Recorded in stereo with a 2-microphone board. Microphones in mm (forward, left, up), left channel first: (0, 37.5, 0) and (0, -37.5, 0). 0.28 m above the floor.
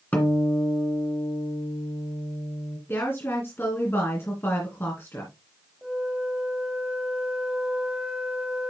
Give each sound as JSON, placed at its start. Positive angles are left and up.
{"t": 0.1, "sound": "a guitar", "side_deg": 20, "distance_m": 2.0}
{"t": 2.9, "sound": "a woman speaking", "side_deg": 30, "distance_m": 2.5}
{"t": 5.8, "sound": "a flute", "side_deg": -15, "distance_m": 2.0}